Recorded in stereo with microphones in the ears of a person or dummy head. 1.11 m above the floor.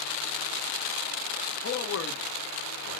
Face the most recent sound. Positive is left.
turn(degrees=55)  # may be behind; listen again after turning